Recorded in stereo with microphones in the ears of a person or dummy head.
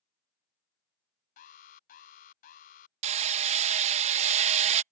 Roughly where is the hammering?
Right.